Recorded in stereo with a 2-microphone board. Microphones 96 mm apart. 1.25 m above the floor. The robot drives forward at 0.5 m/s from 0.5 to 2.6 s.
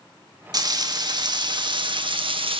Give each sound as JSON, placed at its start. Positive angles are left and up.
{"t": 0.5, "sound": "frying", "side_deg": -45, "distance_m": 2.5}